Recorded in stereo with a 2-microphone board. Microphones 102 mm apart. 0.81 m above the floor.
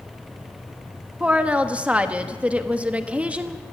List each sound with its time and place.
1.2 s a woman speaking: 10° right (ahead or behind), 1.3 m